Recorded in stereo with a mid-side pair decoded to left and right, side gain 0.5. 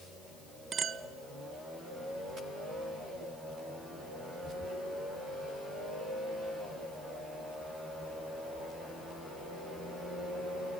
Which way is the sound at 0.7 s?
45° right.